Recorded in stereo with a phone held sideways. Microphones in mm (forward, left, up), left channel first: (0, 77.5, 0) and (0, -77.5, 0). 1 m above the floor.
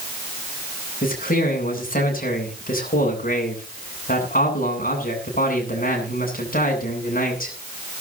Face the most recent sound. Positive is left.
turn(degrees=60)  # may be behind; listen again after turning